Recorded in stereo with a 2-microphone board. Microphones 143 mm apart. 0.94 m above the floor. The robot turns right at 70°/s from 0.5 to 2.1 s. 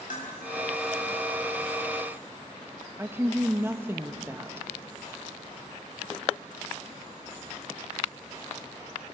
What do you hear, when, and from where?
0.1 s dishes clattering: 80° left, 5 m
3.0 s a woman speaking: 15° right (ahead or behind), 1.1 m